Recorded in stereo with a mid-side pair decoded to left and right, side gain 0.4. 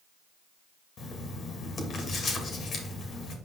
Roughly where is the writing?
Ahead left.